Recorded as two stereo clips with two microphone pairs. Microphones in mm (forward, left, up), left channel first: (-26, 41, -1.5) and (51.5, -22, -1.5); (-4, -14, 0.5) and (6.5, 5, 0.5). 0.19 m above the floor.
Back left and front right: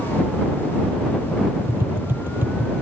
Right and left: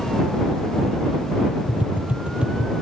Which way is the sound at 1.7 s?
30° left.